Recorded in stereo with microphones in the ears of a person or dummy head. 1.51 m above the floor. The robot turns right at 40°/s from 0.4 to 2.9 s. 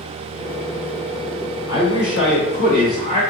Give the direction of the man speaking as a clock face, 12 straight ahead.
9 o'clock.